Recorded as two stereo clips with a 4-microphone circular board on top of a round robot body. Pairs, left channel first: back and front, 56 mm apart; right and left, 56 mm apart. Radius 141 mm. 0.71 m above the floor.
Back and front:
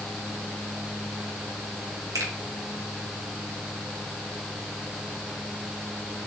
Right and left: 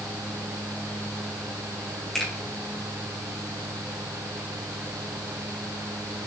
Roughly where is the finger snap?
Ahead.